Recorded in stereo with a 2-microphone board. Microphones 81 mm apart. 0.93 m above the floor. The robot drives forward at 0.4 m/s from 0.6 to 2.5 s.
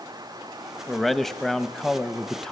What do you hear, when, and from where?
0.9 s a man speaking: 5° left (ahead or behind), 1.1 m